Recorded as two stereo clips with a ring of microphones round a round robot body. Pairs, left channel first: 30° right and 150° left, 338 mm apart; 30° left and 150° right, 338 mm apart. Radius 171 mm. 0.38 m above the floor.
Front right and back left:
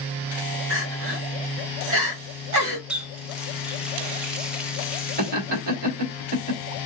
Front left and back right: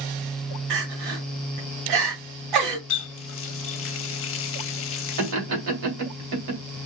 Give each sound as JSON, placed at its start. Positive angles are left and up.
{"t": 0.7, "sound": "crying", "azimuth_deg": -160, "distance_m": 1.8}
{"t": 2.9, "sound": "a running tap", "azimuth_deg": 65, "distance_m": 0.6}
{"t": 5.2, "sound": "laughter", "azimuth_deg": -150, "distance_m": 2.0}